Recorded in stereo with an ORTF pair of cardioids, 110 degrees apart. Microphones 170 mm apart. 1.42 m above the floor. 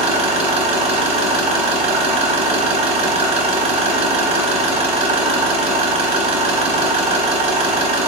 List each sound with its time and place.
0.0 s an engine running: 35° right, 0.7 m